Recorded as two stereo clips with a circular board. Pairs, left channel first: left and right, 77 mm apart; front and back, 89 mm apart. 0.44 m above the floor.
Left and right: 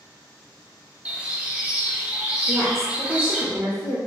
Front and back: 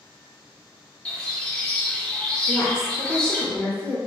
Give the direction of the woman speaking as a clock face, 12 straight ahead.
2 o'clock.